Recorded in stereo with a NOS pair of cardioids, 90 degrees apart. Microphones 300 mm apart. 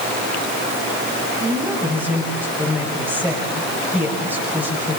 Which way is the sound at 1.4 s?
5° right.